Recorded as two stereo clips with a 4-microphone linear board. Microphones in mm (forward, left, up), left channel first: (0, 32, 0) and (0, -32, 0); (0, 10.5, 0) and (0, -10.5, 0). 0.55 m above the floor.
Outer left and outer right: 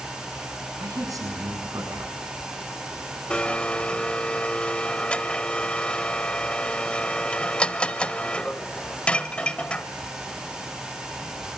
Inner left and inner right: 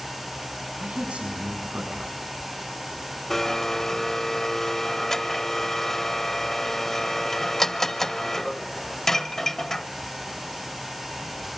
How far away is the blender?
About 1.2 m.